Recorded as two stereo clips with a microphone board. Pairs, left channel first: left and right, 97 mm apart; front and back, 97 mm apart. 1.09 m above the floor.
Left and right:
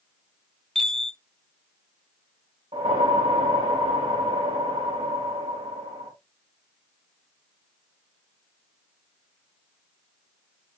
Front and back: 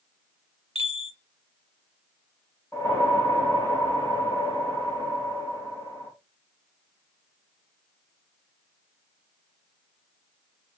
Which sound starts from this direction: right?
A whoosh, at 2.7 s.